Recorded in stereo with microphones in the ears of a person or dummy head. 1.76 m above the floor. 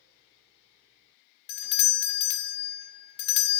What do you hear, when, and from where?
1.5 s a doorbell: 60° left (ahead or behind), 0.5 m